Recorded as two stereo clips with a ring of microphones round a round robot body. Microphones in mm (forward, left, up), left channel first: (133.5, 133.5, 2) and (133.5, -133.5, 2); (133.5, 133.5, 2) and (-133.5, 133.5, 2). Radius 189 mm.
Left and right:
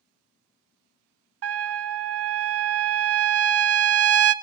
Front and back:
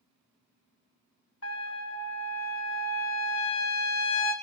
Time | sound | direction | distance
1.4 | a trumpet | 55° right | 0.7 m